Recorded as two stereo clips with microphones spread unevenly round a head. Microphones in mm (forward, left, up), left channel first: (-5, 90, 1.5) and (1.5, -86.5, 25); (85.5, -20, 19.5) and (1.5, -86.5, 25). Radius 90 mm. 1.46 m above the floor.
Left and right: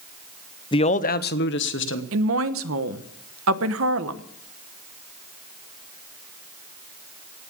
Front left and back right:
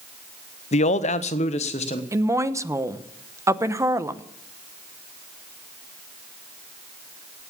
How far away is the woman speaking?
About 1.0 m.